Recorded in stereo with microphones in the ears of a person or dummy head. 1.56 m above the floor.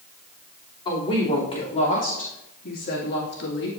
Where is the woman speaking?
25° left (ahead or behind), 3.5 m; by 3.7 s 65° left (ahead or behind), 2 m.